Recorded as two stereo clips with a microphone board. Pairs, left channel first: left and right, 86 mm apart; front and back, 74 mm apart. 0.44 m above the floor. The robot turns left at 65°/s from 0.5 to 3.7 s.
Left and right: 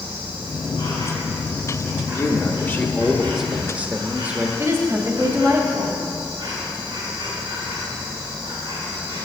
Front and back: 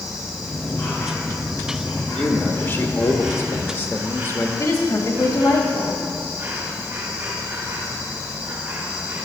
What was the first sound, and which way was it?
An insect, 85° left.